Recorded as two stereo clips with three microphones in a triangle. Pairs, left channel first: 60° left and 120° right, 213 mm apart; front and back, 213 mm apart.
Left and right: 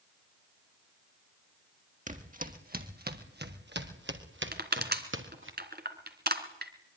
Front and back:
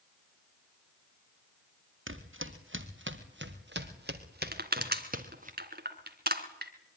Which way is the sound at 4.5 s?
150° right.